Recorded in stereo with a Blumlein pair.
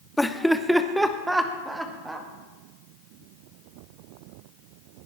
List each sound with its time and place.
0.2 s laughter: 5° left, 0.7 m; by 2.3 s 10° right, 2.0 m